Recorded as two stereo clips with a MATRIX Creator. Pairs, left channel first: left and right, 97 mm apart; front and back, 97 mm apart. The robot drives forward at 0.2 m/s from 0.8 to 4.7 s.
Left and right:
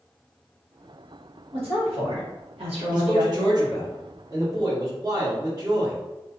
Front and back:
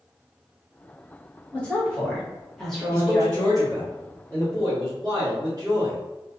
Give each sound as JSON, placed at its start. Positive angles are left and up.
{"t": 1.5, "sound": "a woman speaking", "azimuth_deg": -75, "distance_m": 1.3}
{"t": 2.9, "sound": "a man speaking", "azimuth_deg": -125, "distance_m": 1.1}